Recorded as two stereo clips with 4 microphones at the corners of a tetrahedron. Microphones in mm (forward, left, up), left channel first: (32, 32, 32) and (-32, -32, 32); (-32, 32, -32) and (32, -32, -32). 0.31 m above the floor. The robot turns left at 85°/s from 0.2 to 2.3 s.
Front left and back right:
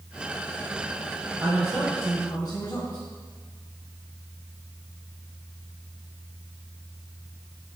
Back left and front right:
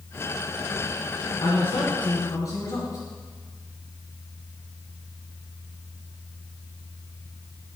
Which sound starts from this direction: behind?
A man speaking, at 1.4 s.